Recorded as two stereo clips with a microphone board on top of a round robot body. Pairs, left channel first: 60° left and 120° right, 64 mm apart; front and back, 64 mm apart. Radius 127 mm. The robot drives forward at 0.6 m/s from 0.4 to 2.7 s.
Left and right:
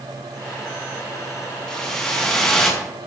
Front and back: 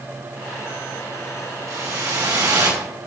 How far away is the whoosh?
About 5 m.